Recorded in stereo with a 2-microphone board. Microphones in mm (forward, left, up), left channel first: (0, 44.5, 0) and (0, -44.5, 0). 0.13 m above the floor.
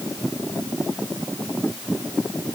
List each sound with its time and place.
Only background noise.